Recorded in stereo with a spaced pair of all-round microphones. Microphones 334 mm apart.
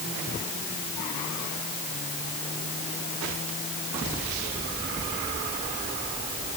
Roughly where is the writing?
I don't hear writing.